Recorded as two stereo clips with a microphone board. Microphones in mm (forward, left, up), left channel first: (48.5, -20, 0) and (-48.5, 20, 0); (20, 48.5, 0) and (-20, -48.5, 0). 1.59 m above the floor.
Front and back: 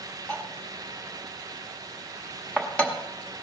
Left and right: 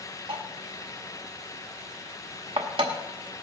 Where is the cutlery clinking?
100° right, 1.7 m.